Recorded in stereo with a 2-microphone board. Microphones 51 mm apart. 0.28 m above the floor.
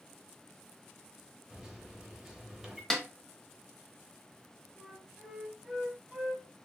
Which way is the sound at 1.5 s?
10° right (ahead or behind).